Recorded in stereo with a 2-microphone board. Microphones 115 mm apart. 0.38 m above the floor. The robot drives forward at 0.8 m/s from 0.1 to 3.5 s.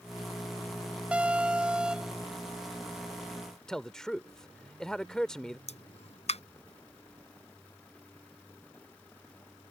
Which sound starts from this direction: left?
A pop, at 5.7 s.